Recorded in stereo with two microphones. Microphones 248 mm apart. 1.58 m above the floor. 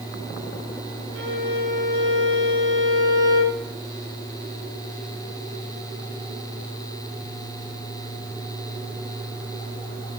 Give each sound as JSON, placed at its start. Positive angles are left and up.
{"t": 1.1, "sound": "a violin", "side_deg": -60, "distance_m": 5.0}